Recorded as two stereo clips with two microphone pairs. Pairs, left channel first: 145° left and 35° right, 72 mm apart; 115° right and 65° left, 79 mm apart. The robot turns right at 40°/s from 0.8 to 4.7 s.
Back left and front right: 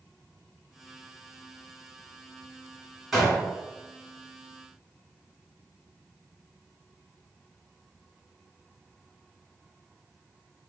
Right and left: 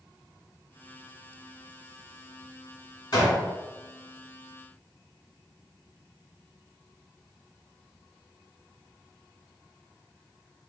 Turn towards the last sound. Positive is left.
turn(degrees=-60)